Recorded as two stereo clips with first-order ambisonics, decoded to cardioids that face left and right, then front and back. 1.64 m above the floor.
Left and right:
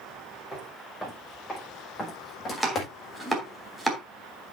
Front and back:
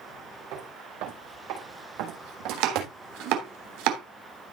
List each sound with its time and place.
0.5 s footsteps: straight behind, 6 m; by 2.9 s 150° left, 4.5 m
2.5 s chopping: straight behind, 3 m